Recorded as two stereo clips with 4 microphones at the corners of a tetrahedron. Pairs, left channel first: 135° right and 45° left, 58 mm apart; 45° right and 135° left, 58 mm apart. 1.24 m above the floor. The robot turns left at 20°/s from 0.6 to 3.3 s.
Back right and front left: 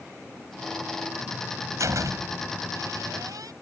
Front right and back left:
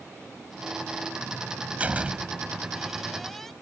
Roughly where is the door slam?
Left.